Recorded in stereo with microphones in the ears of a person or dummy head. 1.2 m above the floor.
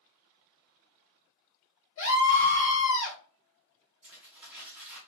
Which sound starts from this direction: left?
A scream, at 2.0 s.